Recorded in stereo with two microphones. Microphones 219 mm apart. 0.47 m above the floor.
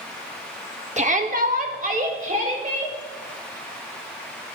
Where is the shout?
35° right (ahead or behind), 0.8 m.